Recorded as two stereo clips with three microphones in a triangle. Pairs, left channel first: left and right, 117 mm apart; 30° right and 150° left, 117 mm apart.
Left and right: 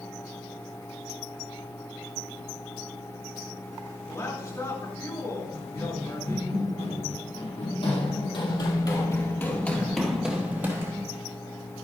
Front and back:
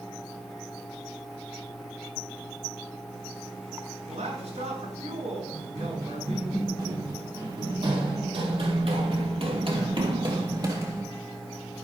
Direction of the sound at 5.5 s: 95° left.